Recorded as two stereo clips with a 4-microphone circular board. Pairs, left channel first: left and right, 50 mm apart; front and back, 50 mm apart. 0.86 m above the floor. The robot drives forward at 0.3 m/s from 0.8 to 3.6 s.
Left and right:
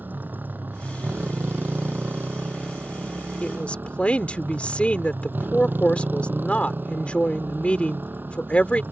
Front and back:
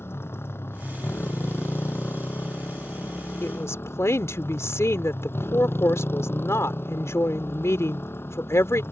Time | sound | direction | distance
0.0 | a motorcycle | 40° right | ?
3.4 | a woman speaking | 25° left | ?